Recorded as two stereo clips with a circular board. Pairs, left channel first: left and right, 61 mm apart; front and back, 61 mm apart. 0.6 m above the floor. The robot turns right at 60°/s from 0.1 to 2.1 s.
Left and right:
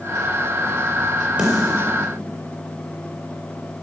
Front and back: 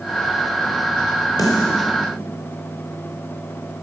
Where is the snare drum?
20° right, 5 m; by 1.9 s 10° left, 5 m.